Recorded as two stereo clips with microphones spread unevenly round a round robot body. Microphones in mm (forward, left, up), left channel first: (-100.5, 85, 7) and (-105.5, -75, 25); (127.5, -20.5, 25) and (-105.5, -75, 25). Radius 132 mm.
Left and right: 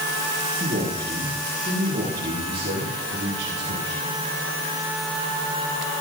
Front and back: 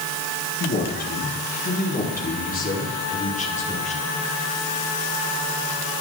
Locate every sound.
0.6 s a man speaking: 35° right, 7.5 m; by 4.2 s 50° right, 7.5 m